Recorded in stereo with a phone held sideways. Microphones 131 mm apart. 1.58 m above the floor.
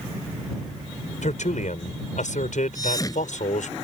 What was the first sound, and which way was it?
A man speaking, 75° left (ahead or behind).